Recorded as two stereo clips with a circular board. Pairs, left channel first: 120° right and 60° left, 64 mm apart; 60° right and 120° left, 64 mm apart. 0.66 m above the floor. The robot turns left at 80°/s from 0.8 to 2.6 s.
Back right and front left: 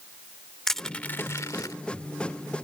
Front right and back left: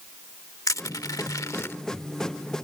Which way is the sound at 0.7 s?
35° right.